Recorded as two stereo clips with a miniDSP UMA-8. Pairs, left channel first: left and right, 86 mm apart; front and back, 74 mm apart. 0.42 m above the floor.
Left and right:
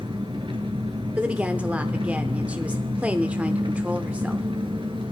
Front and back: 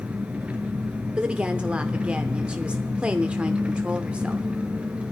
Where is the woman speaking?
135° right, 0.8 m.